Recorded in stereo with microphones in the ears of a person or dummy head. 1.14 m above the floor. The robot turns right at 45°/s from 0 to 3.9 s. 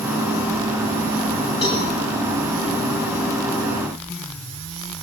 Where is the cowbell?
30° left (ahead or behind), 7 m; by 1.9 s 20° left (ahead or behind), 7 m.